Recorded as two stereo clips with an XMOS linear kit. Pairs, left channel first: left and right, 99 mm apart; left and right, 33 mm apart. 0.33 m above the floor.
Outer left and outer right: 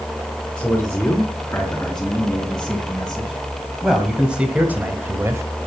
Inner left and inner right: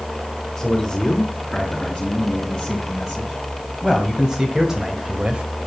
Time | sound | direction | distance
0.6 | a man speaking | 15° left (ahead or behind) | 4 m